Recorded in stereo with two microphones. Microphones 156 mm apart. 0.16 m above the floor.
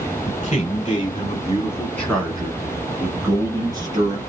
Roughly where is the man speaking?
Left.